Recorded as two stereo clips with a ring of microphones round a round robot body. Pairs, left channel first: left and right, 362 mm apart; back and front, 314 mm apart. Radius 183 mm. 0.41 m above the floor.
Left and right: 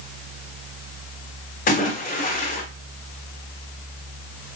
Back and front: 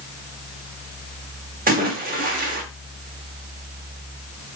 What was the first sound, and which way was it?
A splash, 40° left.